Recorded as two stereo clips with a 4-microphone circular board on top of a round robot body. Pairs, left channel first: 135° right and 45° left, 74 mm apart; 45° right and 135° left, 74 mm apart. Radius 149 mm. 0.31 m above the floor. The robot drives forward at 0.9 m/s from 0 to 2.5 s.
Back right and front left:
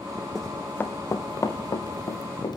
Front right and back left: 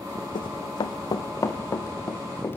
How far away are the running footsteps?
About 1.3 m.